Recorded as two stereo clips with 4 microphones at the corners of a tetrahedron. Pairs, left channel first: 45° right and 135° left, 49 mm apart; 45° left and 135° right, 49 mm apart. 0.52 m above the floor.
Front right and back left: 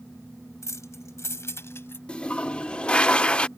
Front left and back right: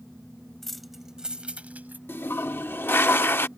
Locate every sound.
0.6 s keys jangling: 40° right; by 2.0 s 85° right
2.1 s a toilet flushing: 15° left